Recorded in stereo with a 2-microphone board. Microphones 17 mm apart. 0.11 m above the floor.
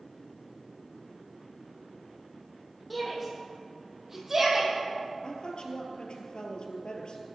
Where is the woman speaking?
60° left (ahead or behind), 2 m.